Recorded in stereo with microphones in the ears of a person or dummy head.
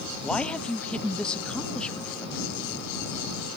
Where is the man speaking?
5° left (ahead or behind).